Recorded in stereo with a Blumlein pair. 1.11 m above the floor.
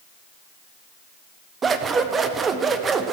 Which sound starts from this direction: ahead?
Scissors, at 1.6 s.